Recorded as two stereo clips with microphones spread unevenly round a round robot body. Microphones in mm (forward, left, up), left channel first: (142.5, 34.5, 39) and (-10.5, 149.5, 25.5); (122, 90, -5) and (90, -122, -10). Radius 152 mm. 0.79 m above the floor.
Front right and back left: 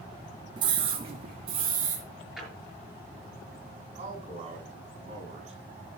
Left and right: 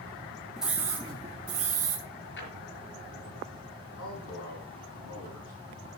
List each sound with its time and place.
0.6 s a scream: 175° left, 0.5 m; by 2.0 s 160° right, 1.1 m
2.4 s a drawer: 55° left, 5.5 m
4.0 s a man speaking: 85° left, 6 m